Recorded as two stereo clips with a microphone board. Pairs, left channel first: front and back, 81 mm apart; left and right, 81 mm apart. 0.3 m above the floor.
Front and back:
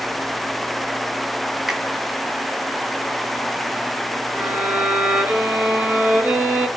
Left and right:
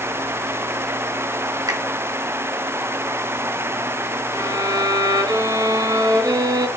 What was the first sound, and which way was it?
A finger snap, 95° right.